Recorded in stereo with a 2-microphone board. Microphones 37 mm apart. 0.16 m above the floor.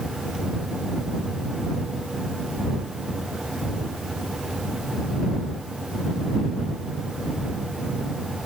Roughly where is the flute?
No flute in this recording.